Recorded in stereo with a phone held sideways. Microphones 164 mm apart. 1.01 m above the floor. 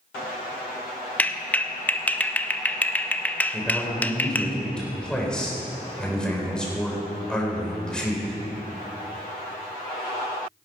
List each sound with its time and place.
1.2 s a clap: 10° left (ahead or behind), 0.5 m
3.5 s a man speaking: 5° left (ahead or behind), 3.5 m